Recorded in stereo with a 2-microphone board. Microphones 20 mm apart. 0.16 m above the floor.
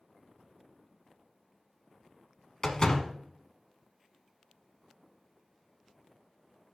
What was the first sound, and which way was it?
A door slam, 30° left (ahead or behind).